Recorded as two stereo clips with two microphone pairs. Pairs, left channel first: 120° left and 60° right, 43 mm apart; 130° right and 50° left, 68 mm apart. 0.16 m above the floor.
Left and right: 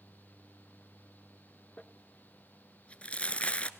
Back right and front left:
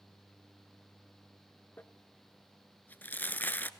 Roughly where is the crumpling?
Behind.